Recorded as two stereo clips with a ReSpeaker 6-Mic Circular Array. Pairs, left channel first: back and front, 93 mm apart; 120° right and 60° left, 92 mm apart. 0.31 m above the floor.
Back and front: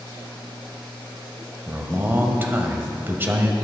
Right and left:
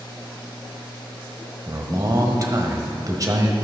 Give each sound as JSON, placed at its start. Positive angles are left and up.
{"t": 1.7, "sound": "a man speaking", "azimuth_deg": 55, "distance_m": 1.5}